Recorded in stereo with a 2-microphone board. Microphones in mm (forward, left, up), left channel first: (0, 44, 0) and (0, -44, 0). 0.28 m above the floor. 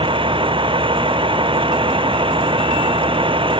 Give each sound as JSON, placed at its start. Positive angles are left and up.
{"t": 0.0, "sound": "a vehicle", "side_deg": -85}